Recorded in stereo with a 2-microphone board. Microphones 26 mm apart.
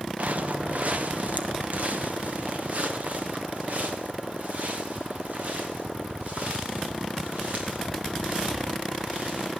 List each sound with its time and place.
0.2 s footsteps: 65° right (ahead or behind), 1.3 m